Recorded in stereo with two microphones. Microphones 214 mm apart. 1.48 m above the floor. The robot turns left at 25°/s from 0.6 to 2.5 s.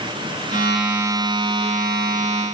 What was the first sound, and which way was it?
Only background noise.